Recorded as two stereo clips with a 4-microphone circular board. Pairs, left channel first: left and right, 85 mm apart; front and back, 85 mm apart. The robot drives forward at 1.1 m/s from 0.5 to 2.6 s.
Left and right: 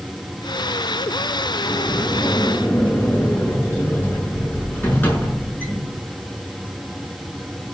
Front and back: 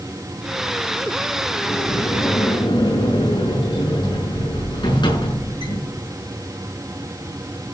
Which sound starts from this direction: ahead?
A sliding door, at 1.6 s.